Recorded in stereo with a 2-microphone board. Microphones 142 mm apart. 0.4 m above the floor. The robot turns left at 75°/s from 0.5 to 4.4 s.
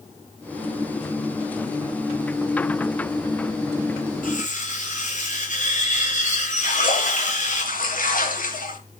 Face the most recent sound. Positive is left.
turn(degrees=75)  # may be behind; listen again after turning